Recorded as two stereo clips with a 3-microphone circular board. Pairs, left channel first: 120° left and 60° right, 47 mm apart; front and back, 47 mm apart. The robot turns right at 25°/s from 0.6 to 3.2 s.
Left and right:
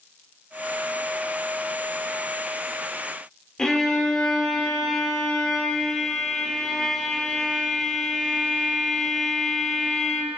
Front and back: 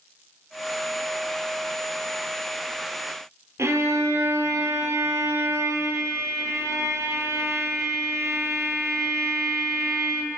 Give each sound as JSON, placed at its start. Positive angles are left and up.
{"t": 3.6, "sound": "a violin", "azimuth_deg": -160, "distance_m": 0.7}